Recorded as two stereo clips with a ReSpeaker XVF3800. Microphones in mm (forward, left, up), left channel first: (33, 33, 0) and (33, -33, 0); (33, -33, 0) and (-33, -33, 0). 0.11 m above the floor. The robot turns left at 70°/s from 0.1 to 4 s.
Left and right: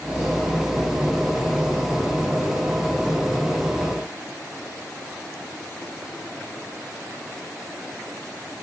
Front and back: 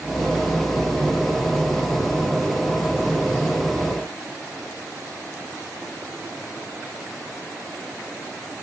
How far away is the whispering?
I don't hear whispering.